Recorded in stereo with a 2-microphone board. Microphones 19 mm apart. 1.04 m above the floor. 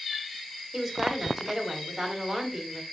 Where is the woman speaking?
15° right (ahead or behind), 5 m.